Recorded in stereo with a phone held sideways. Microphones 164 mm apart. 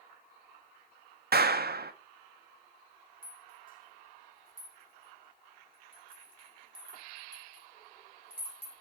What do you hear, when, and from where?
1.3 s a clap: 70° right (ahead or behind), 0.5 m
3.2 s a rattle: 55° left (ahead or behind), 1.6 m